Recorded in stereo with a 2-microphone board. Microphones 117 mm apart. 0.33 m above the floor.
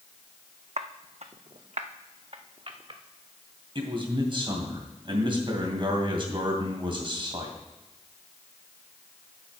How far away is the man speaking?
About 2.5 m.